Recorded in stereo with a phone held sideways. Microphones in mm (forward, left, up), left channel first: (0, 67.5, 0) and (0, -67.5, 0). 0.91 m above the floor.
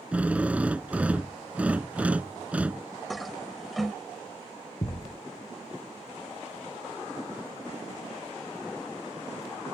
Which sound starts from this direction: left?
A thud, at 4.8 s.